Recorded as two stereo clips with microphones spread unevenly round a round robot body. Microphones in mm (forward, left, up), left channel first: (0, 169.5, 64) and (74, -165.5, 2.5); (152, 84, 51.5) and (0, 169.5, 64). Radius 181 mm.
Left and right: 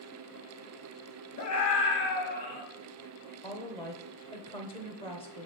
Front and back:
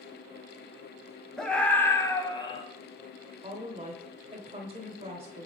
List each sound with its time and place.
1.4 s a scream: 55° left, 2.5 m; by 2.6 s 25° left, 2.5 m
3.4 s a woman speaking: straight behind, 1.0 m